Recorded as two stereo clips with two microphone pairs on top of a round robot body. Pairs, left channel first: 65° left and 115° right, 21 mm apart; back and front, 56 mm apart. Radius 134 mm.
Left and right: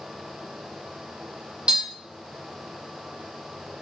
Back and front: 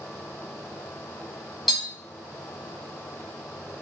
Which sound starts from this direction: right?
Tapping, at 1.7 s.